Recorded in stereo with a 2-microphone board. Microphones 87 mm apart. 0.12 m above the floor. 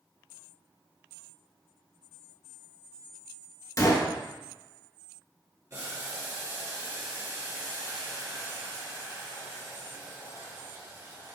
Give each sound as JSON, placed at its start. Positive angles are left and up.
{"t": 3.8, "sound": "a gunshot", "side_deg": 40, "distance_m": 0.7}
{"t": 5.7, "sound": "boiling", "side_deg": -40, "distance_m": 1.9}